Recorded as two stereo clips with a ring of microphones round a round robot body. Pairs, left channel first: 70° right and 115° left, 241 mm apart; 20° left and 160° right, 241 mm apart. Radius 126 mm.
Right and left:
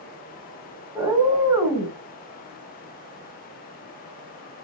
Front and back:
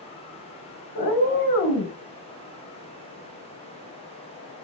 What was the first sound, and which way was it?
A cat meowing, 35° left.